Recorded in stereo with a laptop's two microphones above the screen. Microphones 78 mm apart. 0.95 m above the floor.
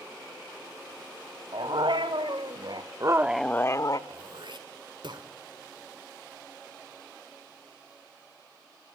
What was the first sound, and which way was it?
A dog barking, 80° right.